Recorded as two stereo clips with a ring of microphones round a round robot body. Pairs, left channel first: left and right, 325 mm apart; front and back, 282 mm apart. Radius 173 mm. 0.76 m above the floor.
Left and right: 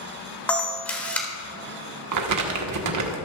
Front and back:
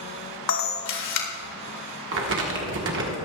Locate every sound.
0.5 s a camera shutter: 5° left, 2 m
2.1 s crumpling: 125° right, 1.3 m